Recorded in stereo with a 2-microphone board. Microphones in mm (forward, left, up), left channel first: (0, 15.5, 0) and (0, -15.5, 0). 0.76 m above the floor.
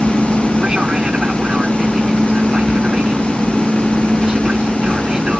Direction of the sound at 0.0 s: 25° right (ahead or behind).